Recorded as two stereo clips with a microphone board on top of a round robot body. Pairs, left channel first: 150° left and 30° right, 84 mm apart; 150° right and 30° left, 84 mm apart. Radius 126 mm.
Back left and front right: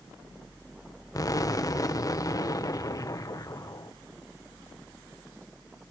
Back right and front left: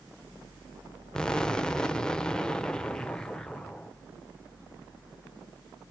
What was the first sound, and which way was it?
An explosion, 130° left.